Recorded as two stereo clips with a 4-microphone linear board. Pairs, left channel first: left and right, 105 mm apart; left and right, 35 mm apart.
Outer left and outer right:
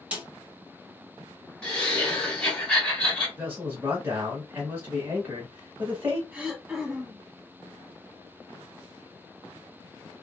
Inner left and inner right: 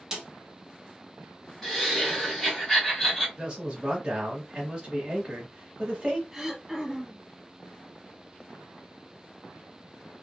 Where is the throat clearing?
15° right (ahead or behind), 1.2 m.